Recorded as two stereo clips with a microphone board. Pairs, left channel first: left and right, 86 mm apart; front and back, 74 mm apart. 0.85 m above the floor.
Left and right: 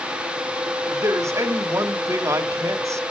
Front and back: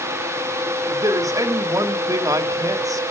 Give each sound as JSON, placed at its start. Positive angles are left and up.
{"t": 0.9, "sound": "a man speaking", "azimuth_deg": -145, "distance_m": 1.5}